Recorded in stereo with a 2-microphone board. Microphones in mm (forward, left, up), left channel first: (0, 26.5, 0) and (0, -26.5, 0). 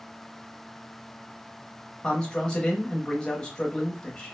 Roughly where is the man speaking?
Centre.